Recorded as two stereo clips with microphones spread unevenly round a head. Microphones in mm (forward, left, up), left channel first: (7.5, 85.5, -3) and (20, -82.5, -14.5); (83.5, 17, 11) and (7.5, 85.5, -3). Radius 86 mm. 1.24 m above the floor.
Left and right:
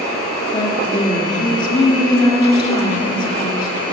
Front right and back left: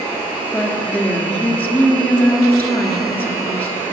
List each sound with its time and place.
0.5 s a woman speaking: 30° left, 3.5 m